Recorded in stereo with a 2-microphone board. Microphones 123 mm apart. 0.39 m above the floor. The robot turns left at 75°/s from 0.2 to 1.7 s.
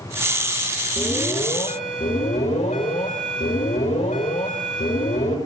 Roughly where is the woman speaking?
I don't hear a woman speaking.